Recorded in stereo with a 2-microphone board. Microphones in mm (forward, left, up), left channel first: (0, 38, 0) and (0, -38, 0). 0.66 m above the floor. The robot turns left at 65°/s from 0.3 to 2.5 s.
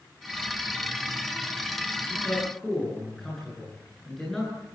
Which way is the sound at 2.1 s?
30° left (ahead or behind).